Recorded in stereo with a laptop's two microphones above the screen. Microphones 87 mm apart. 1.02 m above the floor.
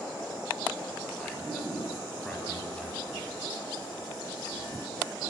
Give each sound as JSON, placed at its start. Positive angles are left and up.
{"t": 1.2, "sound": "a man speaking", "side_deg": 10, "distance_m": 8.0}